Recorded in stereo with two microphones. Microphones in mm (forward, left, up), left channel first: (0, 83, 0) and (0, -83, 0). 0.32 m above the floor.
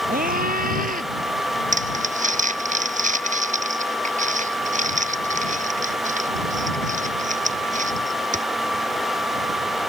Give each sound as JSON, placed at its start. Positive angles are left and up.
{"t": 0.1, "sound": "a scream", "side_deg": -60}
{"t": 1.7, "sound": "crumpling", "side_deg": -50}